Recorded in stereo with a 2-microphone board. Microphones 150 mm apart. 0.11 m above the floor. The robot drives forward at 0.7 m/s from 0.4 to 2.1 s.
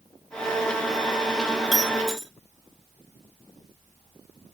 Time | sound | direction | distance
1.7 | breaking glass | centre (ahead or behind) | 1.7 m